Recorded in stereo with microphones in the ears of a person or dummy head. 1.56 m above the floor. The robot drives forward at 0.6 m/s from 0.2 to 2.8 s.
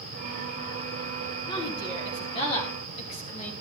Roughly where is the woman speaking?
Left.